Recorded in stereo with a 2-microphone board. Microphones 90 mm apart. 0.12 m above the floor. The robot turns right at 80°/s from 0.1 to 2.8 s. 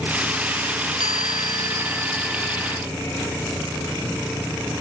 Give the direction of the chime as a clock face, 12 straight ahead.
3 o'clock.